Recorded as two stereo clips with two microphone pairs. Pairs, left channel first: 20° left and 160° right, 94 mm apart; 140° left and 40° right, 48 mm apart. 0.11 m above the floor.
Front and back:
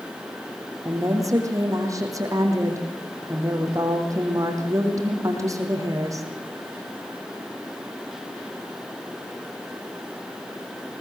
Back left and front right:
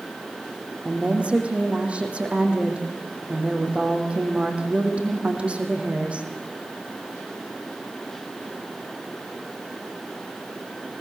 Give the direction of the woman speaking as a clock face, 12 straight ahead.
4 o'clock.